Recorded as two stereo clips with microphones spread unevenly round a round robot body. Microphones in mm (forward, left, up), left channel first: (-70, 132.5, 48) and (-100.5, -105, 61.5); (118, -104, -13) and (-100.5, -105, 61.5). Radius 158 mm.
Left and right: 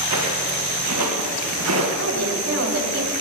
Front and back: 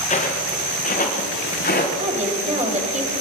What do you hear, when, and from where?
0.1 s footsteps: 60° right, 4 m; by 1.9 s 50° right, 3.5 m
2.0 s a woman speaking: 115° right, 3 m